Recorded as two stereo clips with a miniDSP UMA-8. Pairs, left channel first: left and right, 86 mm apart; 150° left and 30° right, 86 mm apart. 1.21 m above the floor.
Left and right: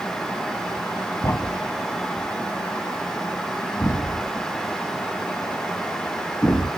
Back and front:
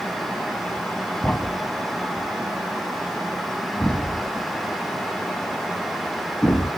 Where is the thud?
90° left, 1.2 m.